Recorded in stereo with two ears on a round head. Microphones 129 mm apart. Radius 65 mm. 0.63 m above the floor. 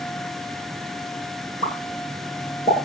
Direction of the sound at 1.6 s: 40° left (ahead or behind).